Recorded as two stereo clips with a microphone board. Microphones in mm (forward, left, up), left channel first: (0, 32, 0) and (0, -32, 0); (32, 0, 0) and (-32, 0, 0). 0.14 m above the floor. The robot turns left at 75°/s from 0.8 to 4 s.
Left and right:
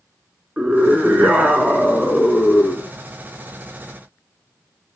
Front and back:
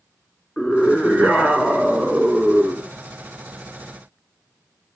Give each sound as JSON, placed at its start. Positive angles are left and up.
{"t": 0.6, "sound": "a scream", "azimuth_deg": -35, "distance_m": 1.1}